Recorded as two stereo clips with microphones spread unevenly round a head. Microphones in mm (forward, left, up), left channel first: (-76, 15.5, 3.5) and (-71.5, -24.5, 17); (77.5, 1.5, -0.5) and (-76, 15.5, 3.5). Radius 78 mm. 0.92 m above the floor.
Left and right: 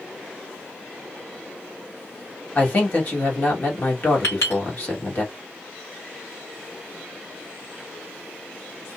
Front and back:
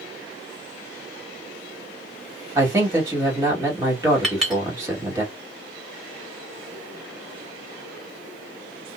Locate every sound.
2.5 s a man speaking: 105° left, 1.6 m
4.2 s a clink: 85° left, 1.6 m